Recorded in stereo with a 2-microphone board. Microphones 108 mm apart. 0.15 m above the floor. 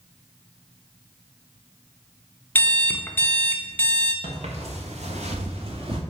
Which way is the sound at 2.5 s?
15° left (ahead or behind).